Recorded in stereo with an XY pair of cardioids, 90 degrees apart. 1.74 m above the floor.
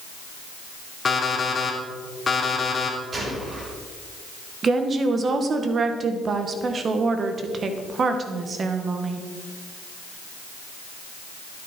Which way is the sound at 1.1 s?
35° left.